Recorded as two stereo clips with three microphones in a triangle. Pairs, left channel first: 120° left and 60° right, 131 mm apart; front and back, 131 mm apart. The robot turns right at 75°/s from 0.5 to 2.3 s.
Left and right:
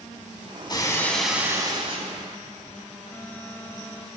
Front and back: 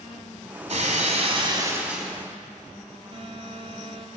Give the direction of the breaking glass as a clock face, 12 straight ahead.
6 o'clock.